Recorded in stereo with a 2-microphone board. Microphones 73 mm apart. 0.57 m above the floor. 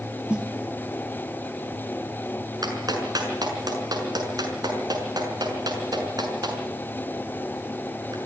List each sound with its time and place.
0.3 s a snare drum: 15° right (ahead or behind), 2.5 m
2.6 s a clap: 65° right (ahead or behind), 6 m